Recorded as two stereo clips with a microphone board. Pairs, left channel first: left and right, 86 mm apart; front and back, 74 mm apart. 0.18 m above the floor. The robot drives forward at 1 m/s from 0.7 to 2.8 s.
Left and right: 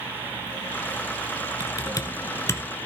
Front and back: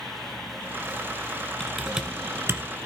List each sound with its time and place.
1.6 s typing on a keyboard: 80° left, 1.0 m; by 2.9 s 145° left, 1.4 m